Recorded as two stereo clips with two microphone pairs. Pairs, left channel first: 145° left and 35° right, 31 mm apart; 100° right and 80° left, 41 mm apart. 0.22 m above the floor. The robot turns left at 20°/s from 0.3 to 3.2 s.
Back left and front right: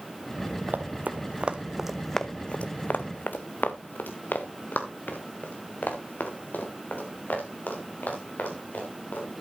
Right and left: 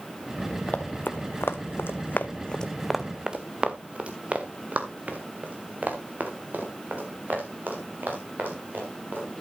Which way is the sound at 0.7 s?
45° right.